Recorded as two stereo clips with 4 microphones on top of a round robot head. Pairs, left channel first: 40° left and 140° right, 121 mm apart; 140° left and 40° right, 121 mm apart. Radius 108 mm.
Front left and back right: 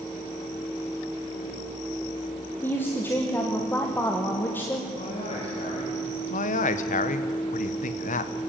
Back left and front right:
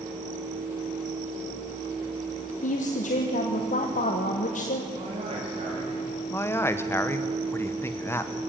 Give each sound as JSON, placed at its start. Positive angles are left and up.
{"t": 2.6, "sound": "a woman speaking", "azimuth_deg": 115, "distance_m": 1.5}
{"t": 4.9, "sound": "a man speaking", "azimuth_deg": 5, "distance_m": 3.0}
{"t": 6.3, "sound": "a man speaking", "azimuth_deg": 70, "distance_m": 1.2}